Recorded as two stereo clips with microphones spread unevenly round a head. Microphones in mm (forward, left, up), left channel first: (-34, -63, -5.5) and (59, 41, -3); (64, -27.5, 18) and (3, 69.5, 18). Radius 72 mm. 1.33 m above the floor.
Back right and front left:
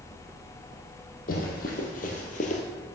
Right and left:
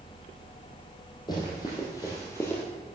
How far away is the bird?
No bird in this recording.